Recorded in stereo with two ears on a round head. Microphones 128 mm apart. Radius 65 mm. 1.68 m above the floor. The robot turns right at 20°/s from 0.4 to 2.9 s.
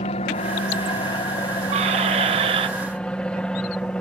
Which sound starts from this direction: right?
A squeak, at 1.7 s.